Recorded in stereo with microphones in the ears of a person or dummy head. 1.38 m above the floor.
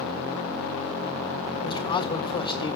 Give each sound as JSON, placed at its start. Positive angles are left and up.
{"t": 1.6, "sound": "a man speaking", "side_deg": 25, "distance_m": 1.3}